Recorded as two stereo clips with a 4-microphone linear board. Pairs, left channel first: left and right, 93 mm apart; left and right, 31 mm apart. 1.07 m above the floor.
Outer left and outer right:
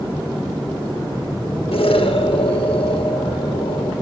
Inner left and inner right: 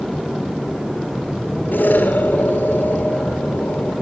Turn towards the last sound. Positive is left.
turn(degrees=80)